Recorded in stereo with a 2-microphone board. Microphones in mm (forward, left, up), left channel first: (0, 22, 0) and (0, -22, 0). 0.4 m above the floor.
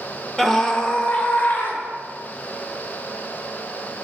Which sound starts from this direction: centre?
A scream, at 0.4 s.